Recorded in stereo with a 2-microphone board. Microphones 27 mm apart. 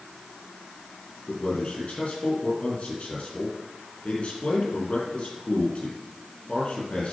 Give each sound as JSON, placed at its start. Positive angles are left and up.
{"t": 1.3, "sound": "a man speaking", "side_deg": 45, "distance_m": 4.5}